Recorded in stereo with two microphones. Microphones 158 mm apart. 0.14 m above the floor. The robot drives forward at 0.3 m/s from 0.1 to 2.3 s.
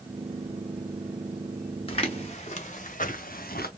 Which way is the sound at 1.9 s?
40° left (ahead or behind).